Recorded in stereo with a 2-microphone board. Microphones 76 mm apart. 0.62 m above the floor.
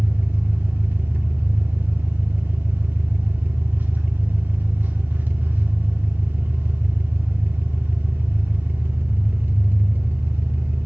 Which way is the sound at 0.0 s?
25° right (ahead or behind).